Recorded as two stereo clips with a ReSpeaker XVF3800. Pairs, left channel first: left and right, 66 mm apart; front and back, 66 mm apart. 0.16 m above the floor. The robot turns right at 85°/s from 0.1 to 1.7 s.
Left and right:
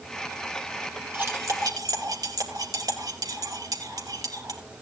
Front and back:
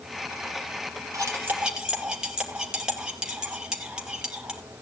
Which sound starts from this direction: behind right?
Cutlery clinking, at 1.1 s.